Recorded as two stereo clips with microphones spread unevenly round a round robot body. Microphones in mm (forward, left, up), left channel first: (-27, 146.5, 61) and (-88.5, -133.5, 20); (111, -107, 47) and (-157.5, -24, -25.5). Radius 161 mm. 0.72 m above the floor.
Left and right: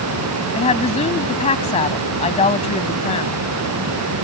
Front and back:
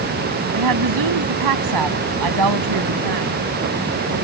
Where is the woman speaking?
145° left.